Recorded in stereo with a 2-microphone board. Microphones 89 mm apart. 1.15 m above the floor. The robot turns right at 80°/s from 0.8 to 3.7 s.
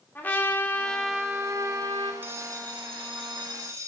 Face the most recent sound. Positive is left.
turn(degrees=-40)